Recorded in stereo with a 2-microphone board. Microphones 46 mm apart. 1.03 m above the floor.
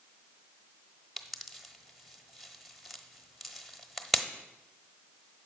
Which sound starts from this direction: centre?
A pop, at 1.2 s.